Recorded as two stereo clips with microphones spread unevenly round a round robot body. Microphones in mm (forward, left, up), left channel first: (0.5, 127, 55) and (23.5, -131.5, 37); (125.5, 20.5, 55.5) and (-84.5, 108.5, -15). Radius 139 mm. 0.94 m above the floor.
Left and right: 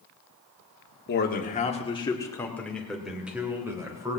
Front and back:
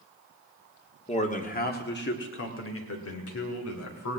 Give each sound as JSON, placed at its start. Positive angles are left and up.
{"t": 1.1, "sound": "a man speaking", "azimuth_deg": 45, "distance_m": 1.8}